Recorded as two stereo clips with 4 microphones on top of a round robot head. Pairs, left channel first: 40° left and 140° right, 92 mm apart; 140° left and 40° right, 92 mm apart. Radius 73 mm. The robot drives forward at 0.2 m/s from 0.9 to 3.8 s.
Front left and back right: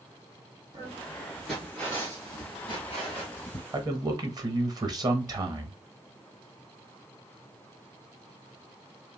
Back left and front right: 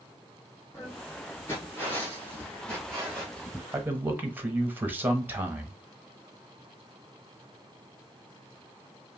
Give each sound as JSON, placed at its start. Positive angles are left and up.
{"t": 0.7, "sound": "footsteps", "azimuth_deg": -175, "distance_m": 0.8}
{"t": 3.7, "sound": "a man speaking", "azimuth_deg": -105, "distance_m": 0.9}